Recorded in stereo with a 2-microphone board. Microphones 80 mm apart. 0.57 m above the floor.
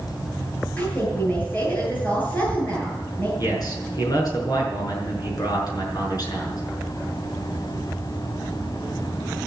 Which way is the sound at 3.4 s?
55° left (ahead or behind).